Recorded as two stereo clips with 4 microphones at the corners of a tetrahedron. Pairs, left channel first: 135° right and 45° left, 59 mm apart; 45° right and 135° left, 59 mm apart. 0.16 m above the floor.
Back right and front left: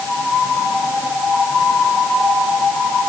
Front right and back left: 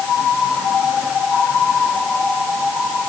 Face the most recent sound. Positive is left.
No sound to turn to.